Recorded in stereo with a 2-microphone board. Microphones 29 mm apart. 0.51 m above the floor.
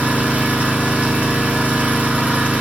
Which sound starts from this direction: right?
An engine running, at 0.0 s.